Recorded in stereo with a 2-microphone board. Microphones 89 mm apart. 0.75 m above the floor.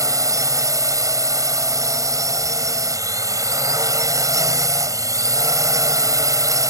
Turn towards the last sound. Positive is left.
turn(degrees=-40)  # may be behind; listen again after turning